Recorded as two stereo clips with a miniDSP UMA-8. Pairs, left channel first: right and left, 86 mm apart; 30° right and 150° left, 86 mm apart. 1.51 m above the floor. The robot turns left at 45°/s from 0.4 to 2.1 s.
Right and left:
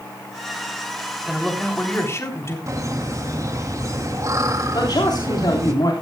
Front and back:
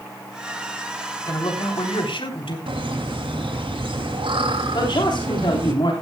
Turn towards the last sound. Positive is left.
turn(degrees=-55)